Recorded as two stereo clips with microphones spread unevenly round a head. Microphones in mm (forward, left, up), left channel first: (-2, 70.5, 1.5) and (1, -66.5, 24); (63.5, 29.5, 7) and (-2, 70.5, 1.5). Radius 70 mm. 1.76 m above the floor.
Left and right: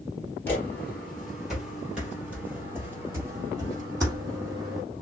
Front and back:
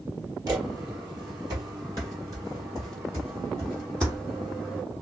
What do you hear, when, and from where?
0.5 s footsteps: 170° left, 2 m; by 4.8 s 150° right, 4 m